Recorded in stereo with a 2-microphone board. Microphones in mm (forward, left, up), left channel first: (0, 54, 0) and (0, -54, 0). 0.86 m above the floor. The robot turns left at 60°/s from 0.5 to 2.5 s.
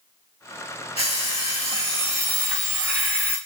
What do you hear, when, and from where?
1.0 s an alarm clock: 100° left, 2 m; by 3.4 s 10° left, 2 m